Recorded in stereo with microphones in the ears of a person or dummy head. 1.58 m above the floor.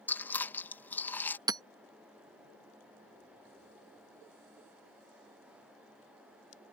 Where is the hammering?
20° right (ahead or behind).